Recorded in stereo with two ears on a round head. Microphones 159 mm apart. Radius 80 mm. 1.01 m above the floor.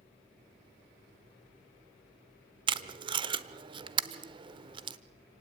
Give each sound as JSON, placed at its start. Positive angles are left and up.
{"t": 2.7, "sound": "tape being pulled", "side_deg": -30, "distance_m": 0.9}